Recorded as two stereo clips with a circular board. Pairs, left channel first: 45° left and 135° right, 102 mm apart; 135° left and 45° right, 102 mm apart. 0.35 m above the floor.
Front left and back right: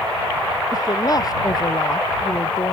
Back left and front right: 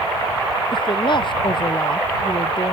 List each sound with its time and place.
0.7 s a woman speaking: 100° left; by 2.7 s 95° left